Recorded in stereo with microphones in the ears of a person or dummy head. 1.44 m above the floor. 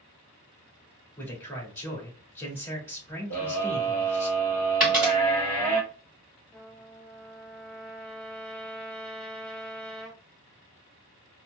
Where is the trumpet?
5° left (ahead or behind), 2 m.